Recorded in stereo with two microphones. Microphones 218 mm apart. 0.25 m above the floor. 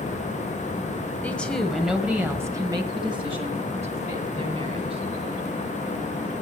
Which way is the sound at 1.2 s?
5° left (ahead or behind).